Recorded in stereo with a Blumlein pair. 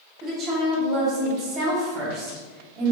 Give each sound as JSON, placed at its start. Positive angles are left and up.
{"t": 0.2, "sound": "a woman speaking", "azimuth_deg": -25, "distance_m": 1.1}